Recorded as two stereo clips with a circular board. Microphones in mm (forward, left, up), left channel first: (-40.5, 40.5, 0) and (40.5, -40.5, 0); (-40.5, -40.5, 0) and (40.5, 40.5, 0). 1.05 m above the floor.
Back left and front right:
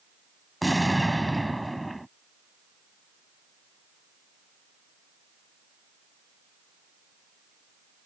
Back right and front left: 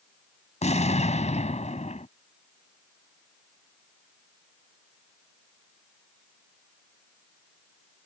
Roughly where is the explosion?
Behind right.